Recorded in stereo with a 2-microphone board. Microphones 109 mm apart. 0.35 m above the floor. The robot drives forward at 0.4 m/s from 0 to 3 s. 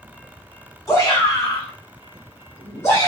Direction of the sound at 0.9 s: 30° left (ahead or behind).